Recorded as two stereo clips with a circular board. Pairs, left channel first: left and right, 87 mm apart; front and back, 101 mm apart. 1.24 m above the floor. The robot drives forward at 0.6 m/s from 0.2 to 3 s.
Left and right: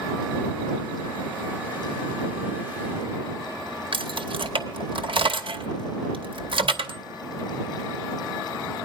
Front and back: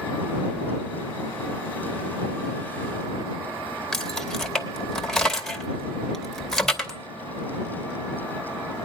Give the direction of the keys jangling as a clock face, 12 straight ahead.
3 o'clock.